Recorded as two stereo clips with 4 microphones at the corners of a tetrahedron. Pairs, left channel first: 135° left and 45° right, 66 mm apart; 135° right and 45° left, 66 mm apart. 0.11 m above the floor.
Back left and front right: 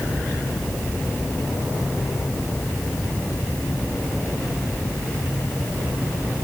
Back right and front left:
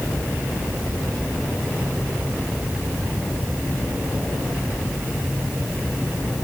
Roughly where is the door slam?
I don't hear a door slam.